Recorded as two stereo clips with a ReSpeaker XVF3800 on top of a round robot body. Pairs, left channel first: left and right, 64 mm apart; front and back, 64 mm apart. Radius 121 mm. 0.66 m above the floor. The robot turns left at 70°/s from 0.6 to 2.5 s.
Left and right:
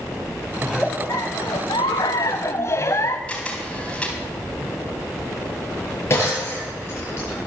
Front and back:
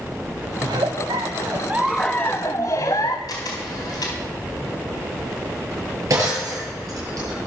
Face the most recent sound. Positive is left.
turn(degrees=140)